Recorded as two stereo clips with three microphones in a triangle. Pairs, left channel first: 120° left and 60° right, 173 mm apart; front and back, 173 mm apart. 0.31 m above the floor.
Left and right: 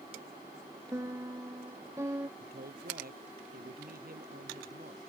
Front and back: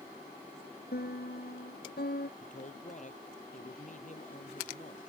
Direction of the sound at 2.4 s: 40° right.